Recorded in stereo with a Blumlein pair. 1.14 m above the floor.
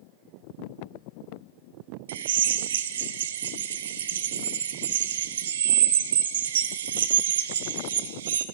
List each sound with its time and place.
2.1 s a drill: 60° right, 0.7 m